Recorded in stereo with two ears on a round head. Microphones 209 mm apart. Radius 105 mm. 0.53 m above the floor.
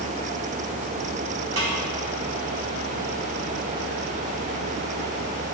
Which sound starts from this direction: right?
A snare drum, at 1.6 s.